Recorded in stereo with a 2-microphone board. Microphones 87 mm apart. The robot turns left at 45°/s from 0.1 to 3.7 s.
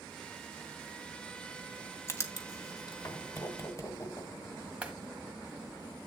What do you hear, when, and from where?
2.1 s writing: 30° left (ahead or behind), 1.5 m; by 4.3 s 35° left (ahead or behind), 1.5 m
4.8 s a clap: 10° right (ahead or behind), 1.9 m